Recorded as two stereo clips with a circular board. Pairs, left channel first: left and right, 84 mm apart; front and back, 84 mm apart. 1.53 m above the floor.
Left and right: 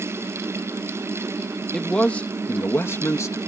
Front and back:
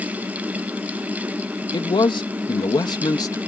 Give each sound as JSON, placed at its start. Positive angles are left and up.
{"t": 1.7, "sound": "a man speaking", "azimuth_deg": 10}